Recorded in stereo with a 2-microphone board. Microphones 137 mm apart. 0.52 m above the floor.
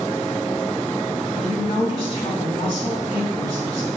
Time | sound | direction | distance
1.4 | a woman speaking | 45° left (ahead or behind) | 3.5 m